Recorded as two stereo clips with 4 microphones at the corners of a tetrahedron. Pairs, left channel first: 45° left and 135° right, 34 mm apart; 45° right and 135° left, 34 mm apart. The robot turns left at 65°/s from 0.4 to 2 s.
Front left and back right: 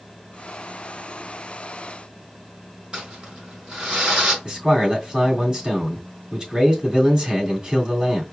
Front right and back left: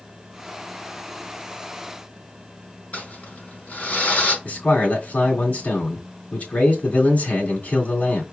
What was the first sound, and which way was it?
Crumpling, 70° right.